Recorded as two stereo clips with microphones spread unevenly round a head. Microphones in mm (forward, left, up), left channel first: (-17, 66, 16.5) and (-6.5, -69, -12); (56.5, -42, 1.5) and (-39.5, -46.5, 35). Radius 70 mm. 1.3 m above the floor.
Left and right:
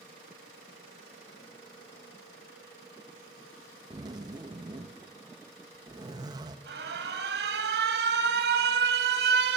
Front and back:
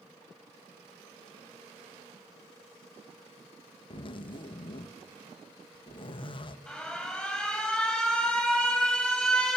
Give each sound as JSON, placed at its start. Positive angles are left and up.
{"t": 3.9, "sound": "a zipper", "azimuth_deg": -25, "distance_m": 1.7}
{"t": 6.7, "sound": "an alarm", "azimuth_deg": -85, "distance_m": 5.5}